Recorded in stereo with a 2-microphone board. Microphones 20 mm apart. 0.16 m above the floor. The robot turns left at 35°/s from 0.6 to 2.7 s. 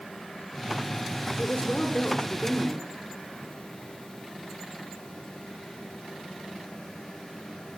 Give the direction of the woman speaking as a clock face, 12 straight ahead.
8 o'clock.